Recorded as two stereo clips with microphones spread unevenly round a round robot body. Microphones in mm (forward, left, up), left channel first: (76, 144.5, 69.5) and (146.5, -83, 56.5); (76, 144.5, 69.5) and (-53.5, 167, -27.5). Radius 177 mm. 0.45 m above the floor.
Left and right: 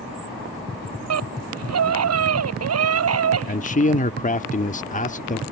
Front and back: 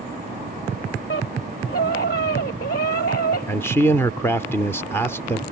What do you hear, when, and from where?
1.1 s a scream: 65° right; by 3.6 s 60° right
3.5 s a man speaking: 130° left